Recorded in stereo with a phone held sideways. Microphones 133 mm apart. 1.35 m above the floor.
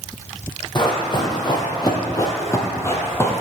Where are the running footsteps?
35° left (ahead or behind), 1.8 m; by 3.4 s 15° left (ahead or behind), 1.6 m.